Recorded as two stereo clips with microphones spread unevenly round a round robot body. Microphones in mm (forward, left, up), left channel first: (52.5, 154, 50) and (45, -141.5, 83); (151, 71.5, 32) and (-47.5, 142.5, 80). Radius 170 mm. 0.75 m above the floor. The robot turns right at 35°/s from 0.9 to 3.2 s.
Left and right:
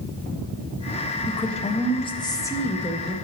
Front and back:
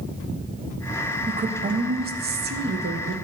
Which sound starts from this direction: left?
A woman speaking, at 1.3 s.